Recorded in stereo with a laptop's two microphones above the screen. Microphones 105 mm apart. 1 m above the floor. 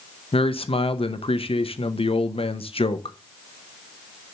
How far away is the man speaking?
About 0.7 m.